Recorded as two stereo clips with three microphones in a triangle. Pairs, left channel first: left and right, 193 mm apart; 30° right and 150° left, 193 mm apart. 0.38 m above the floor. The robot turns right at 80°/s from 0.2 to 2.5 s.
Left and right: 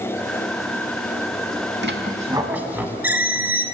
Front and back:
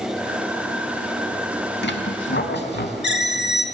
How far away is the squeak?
About 0.6 m.